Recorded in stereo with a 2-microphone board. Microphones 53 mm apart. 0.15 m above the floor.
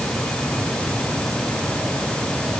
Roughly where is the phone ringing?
I don't hear a phone ringing.